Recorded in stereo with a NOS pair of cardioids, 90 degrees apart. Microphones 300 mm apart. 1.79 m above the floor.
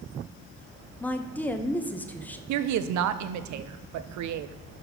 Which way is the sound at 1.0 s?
5° left.